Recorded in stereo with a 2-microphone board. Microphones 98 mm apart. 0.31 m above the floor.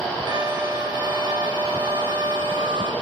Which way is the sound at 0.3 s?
50° right (ahead or behind).